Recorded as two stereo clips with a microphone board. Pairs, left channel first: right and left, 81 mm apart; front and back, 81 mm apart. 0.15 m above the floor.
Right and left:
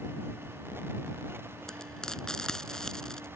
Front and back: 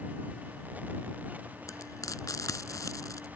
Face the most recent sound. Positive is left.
turn(degrees=-10)